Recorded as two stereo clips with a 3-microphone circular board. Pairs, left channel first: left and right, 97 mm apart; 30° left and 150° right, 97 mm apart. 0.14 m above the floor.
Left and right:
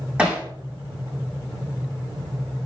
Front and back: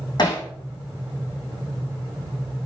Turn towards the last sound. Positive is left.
turn(degrees=-15)